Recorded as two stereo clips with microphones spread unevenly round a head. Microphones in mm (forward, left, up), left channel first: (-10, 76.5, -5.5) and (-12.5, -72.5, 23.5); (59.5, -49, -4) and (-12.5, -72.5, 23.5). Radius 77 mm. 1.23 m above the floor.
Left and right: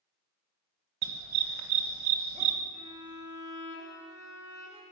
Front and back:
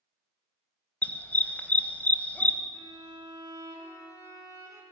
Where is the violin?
135° right, 4 m.